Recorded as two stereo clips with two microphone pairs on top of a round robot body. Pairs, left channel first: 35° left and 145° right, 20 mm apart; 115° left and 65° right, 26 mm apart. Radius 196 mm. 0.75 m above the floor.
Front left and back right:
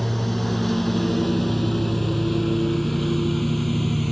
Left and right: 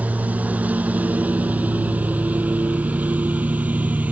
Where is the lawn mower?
45° right; by 4.1 s 50° right.